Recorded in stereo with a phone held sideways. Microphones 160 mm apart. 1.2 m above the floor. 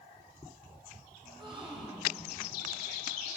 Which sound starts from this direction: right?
A gasp, at 1.2 s.